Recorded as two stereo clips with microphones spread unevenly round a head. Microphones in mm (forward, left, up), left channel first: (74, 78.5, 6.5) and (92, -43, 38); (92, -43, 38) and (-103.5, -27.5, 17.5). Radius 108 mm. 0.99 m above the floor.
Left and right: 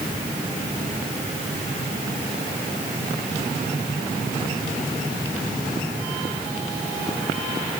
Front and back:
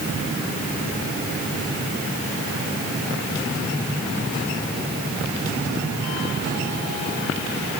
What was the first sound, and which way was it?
Only background noise.